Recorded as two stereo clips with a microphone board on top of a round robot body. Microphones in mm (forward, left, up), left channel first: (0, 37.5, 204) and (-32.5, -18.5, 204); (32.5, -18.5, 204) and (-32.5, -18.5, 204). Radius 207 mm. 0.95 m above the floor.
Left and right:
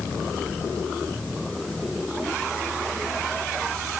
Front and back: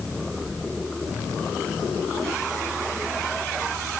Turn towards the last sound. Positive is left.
No sound to turn to.